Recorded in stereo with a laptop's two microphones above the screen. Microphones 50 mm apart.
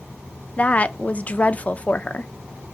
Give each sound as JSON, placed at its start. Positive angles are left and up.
{"t": 0.6, "sound": "a woman speaking", "side_deg": 30, "distance_m": 0.6}